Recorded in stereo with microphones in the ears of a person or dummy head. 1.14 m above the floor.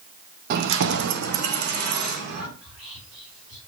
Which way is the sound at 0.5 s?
45° right (ahead or behind).